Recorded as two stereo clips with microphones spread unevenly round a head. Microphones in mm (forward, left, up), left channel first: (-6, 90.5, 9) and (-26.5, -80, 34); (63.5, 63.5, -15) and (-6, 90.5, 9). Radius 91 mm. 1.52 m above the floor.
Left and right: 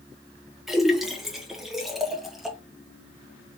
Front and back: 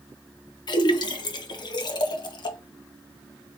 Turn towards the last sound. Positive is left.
turn(degrees=-20)